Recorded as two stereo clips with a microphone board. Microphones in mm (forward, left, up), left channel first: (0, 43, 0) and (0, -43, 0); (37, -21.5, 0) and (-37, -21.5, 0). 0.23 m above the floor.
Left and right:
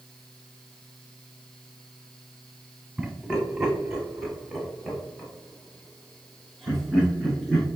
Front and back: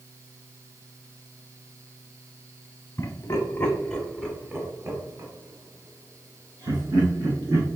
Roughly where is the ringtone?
No ringtone in this recording.